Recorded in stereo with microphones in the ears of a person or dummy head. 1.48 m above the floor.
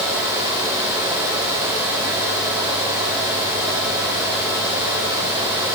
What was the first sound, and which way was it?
Only background noise.